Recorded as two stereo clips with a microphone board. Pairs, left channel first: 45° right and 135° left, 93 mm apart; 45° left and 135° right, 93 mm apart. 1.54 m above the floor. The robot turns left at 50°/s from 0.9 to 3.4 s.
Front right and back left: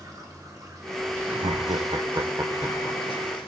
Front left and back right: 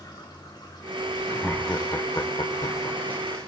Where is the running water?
85° left, 2.5 m; by 3.5 s 40° right, 2.5 m.